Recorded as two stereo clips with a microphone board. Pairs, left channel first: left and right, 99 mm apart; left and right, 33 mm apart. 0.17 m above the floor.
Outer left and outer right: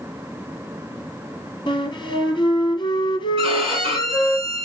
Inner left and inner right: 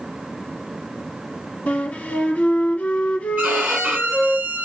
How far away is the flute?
About 1.5 m.